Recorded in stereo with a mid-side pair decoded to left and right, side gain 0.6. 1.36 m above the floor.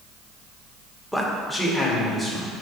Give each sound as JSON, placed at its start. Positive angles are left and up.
{"t": 1.1, "sound": "a man speaking", "azimuth_deg": 5, "distance_m": 1.5}